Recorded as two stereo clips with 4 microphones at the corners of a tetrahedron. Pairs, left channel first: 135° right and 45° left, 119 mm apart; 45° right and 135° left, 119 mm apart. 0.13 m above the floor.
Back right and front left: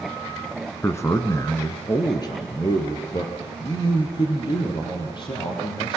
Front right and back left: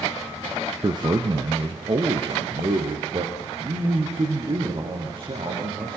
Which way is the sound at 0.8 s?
165° left.